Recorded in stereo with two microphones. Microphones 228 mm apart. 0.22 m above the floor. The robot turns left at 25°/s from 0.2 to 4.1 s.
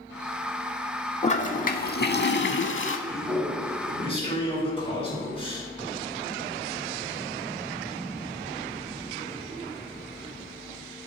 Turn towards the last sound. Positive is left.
turn(degrees=25)  # may be behind; listen again after turning